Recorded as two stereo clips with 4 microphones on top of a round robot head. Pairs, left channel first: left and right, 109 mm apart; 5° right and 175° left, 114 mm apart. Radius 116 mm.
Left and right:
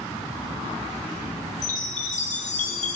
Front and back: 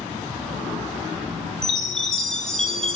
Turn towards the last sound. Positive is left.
turn(degrees=80)